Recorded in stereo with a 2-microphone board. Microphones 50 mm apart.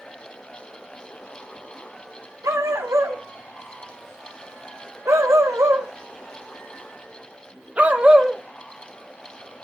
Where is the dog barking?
85° right, 3.5 m; by 8.4 s 15° right (ahead or behind), 1.6 m.